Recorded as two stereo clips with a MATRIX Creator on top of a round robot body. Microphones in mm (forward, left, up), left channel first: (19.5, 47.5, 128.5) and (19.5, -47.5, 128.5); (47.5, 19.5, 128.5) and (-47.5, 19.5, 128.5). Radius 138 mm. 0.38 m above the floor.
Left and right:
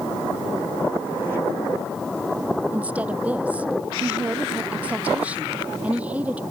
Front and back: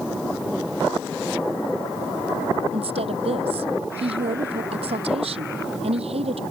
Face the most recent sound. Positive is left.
turn(degrees=-165)